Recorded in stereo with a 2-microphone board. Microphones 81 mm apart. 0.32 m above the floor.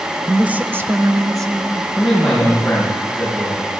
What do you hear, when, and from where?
0.3 s a woman speaking: 5° right (ahead or behind), 0.9 m; by 1.8 s 45° right (ahead or behind), 2 m
1.9 s a man speaking: 5° left (ahead or behind), 5 m